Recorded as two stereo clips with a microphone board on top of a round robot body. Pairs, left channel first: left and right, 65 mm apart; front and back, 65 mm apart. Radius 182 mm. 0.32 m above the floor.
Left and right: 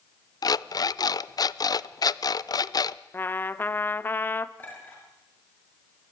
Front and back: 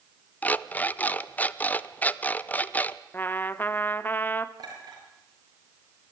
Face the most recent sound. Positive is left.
turn(degrees=155)